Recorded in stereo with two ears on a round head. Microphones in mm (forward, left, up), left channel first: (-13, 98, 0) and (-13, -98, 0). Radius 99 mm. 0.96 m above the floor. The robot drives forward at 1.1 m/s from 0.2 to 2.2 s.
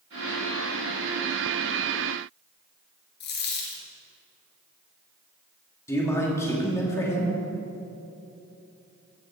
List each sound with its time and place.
3.2 s a dropped coin: 55° left (ahead or behind), 2 m
5.9 s a man speaking: 15° left (ahead or behind), 2.5 m